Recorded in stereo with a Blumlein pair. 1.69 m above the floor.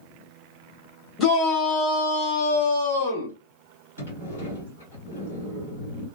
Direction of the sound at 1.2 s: 20° left.